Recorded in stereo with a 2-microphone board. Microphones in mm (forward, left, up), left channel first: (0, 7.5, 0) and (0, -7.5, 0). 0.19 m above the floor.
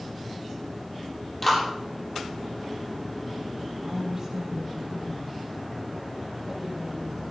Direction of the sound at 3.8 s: 25° right (ahead or behind).